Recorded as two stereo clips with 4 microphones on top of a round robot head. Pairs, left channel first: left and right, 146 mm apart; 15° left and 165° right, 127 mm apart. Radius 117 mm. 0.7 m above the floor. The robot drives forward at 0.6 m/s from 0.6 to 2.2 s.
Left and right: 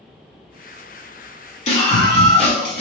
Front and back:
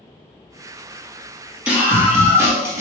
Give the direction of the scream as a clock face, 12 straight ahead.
8 o'clock.